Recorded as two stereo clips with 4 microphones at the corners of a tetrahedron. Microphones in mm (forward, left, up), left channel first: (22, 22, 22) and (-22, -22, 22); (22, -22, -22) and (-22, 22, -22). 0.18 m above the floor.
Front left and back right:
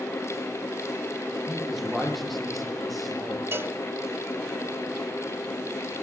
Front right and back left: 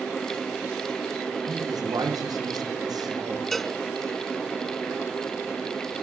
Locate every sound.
1.5 s a man speaking: 135° left, 6 m
3.5 s a cowbell: 130° right, 0.9 m